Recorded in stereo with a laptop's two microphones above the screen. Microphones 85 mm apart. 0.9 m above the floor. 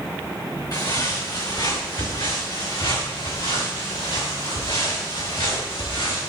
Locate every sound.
0.7 s footsteps: 50° left (ahead or behind), 3.5 m; by 6.3 s 75° left (ahead or behind), 7.5 m